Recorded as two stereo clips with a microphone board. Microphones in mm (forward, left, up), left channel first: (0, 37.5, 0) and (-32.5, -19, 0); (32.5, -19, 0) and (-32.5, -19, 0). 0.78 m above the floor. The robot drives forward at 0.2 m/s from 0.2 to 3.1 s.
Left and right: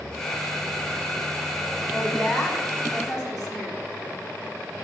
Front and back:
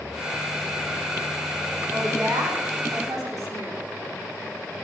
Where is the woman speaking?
150° left, 6 m.